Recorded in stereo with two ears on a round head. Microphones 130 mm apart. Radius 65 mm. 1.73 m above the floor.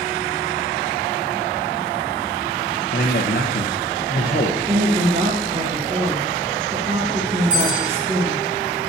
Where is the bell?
65° right (ahead or behind), 5 m.